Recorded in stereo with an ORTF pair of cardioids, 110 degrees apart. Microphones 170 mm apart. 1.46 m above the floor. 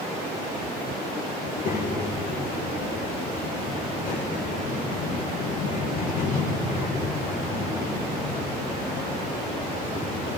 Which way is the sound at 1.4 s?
60° left.